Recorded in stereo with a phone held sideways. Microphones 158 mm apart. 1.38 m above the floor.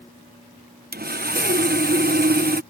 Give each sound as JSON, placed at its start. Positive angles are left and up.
{"t": 0.9, "sound": "sawing", "side_deg": -80}